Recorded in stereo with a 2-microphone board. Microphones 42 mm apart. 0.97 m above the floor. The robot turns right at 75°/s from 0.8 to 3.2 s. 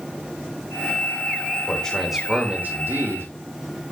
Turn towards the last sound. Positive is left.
turn(degrees=-90)